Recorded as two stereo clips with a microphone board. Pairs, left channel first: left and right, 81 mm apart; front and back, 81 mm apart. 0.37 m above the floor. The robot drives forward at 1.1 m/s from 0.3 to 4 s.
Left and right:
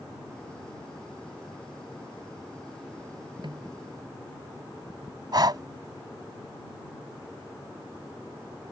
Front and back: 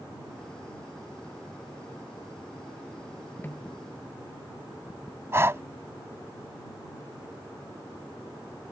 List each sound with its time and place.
3.4 s a snare drum: 65° right; by 3.8 s 70° right
5.3 s breathing: 120° right